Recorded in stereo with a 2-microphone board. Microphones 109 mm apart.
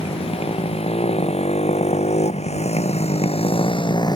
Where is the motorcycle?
65° left (ahead or behind); by 4.2 s 40° left (ahead or behind).